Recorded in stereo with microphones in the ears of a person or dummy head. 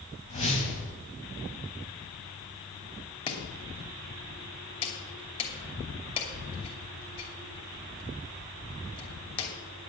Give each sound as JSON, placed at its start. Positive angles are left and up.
{"t": 0.3, "sound": "a whoosh", "side_deg": 40, "distance_m": 4.0}
{"t": 3.3, "sound": "chopping", "side_deg": 25, "distance_m": 2.5}